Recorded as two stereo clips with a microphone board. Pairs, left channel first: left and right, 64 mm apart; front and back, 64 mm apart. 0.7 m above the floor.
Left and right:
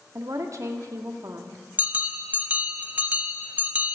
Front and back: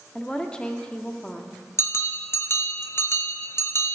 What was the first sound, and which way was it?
A woman speaking, 70° right.